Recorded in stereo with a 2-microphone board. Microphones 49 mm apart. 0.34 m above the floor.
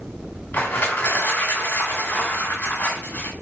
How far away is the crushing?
About 1.9 m.